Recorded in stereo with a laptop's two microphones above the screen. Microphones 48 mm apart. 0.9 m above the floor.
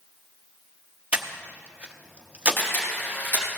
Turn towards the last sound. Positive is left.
turn(degrees=40)  # may be behind; listen again after turning